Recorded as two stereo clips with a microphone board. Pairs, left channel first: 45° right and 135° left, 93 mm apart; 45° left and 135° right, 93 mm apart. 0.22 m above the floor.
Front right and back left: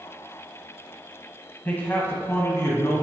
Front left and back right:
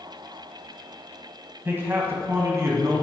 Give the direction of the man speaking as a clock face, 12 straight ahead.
3 o'clock.